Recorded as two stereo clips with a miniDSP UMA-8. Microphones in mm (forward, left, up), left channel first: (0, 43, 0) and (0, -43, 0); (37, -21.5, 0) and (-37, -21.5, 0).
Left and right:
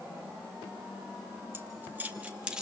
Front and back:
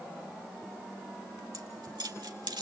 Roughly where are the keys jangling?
Behind right.